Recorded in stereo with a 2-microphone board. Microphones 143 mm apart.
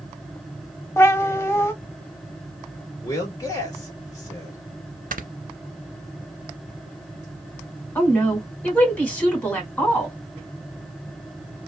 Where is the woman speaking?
10° left (ahead or behind), 1.5 m.